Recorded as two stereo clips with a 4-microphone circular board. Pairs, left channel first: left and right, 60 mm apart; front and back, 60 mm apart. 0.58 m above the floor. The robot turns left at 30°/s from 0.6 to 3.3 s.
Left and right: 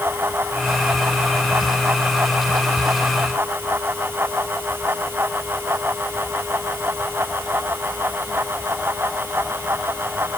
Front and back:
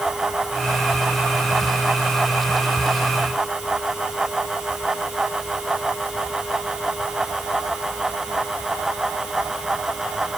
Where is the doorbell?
No doorbell in this recording.